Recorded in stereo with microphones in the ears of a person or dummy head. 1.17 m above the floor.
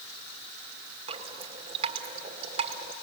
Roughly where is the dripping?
Right.